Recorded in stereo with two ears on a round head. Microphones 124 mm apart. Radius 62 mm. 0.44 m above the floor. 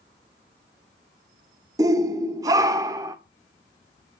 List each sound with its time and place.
1.8 s a shout: 25° right (ahead or behind), 1.0 m